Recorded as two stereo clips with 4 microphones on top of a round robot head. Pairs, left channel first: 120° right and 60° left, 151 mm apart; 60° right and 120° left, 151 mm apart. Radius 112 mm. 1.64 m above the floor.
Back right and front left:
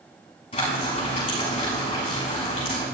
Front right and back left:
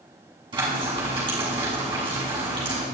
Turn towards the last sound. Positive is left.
turn(degrees=180)